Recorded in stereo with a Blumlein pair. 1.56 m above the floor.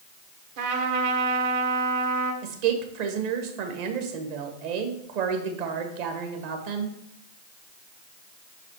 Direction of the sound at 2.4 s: 45° right.